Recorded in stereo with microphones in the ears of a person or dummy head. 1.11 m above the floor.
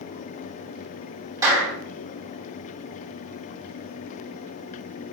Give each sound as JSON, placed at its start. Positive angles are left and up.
{"t": 1.4, "sound": "a clap", "side_deg": -20, "distance_m": 5.5}